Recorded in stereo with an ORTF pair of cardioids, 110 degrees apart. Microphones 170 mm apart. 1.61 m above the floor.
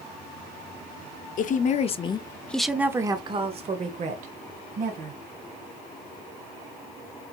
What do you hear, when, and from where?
1.4 s a woman speaking: 55° left, 0.8 m; by 5.2 s 60° right, 1.5 m